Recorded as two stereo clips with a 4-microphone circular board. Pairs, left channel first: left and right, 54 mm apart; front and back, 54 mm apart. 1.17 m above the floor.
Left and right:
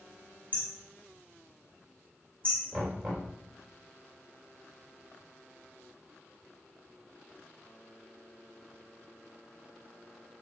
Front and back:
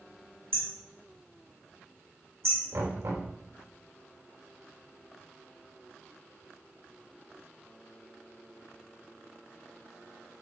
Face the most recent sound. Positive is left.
turn(degrees=175)